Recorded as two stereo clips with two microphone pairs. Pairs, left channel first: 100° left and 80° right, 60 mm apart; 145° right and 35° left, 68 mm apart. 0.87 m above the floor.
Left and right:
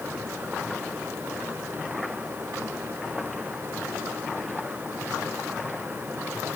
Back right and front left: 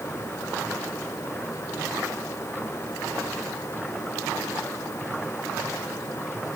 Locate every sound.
Only background noise.